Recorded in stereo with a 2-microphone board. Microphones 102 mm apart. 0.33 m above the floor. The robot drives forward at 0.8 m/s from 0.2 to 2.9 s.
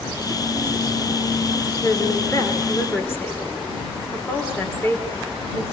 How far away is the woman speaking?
About 3.5 m.